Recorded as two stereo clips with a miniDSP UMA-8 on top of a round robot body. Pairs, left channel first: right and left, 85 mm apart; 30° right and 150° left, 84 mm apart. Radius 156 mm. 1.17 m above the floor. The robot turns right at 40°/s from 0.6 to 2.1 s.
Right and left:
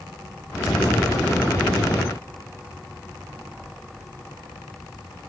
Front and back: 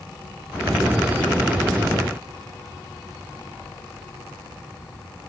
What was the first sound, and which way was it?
Only background noise.